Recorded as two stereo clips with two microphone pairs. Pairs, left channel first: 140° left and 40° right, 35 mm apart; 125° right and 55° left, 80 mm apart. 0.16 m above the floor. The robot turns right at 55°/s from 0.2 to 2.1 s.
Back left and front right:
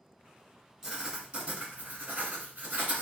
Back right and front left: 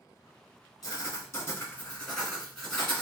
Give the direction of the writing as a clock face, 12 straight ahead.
4 o'clock.